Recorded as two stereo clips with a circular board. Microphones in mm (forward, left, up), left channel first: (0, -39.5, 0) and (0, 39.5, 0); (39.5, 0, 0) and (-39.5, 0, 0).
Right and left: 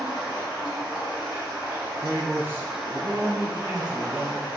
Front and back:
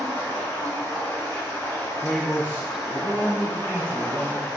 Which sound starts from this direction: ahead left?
A man speaking, at 2.0 s.